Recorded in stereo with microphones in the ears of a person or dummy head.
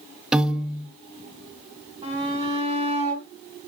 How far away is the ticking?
No ticking in this recording.